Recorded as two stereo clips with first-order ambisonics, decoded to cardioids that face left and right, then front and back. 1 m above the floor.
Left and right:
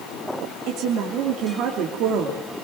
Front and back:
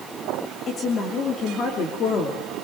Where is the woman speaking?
55° right, 3 m.